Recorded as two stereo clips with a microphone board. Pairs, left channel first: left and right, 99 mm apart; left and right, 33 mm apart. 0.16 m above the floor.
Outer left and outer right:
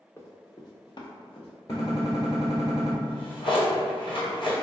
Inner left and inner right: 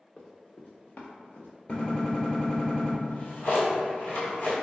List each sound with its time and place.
0.2 s running footsteps: 25° left (ahead or behind), 0.8 m; by 1.5 s 65° left (ahead or behind), 1.0 m
1.7 s a gunshot: 40° left (ahead or behind), 1.1 m
3.0 s a drawer: 60° left (ahead or behind), 1.1 m